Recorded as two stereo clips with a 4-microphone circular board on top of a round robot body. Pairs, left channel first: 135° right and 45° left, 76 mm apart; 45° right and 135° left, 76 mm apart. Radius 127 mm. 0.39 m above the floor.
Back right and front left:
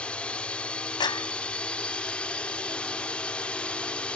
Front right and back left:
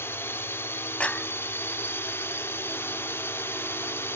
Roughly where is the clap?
Behind right.